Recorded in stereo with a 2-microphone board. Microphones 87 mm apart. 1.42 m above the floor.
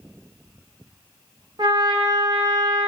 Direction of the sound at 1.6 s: 60° right (ahead or behind).